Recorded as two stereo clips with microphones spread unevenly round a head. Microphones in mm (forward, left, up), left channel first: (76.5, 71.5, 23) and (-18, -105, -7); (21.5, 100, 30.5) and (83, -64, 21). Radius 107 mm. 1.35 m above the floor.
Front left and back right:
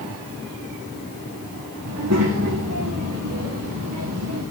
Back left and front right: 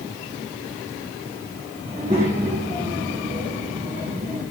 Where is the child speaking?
135° right, 1.4 m.